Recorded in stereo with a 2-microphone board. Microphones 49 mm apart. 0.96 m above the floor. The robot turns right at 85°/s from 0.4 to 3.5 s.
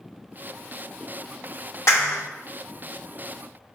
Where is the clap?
70° left (ahead or behind), 2 m; by 2.2 s 80° left, 2 m.